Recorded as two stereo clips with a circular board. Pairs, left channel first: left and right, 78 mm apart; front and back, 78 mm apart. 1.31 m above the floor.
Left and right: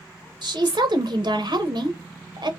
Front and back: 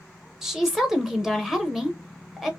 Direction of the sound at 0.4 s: 95° right.